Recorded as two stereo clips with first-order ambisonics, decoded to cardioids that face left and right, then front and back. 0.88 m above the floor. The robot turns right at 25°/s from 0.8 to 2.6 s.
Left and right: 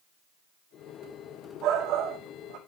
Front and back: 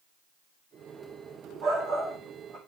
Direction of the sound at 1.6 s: 135° right.